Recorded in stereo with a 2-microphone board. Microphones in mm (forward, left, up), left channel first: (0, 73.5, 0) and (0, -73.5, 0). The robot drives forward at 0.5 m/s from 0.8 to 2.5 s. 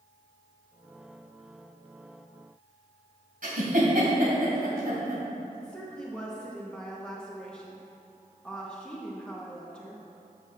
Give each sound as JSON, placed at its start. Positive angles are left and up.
{"t": 3.4, "sound": "a giggle", "side_deg": -70, "distance_m": 2.0}
{"t": 5.5, "sound": "a woman speaking", "side_deg": 5, "distance_m": 1.0}